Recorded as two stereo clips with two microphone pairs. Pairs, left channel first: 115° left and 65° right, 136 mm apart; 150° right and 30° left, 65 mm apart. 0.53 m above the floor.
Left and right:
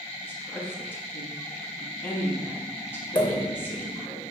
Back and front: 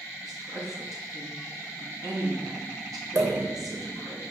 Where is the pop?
55° left, 0.9 m.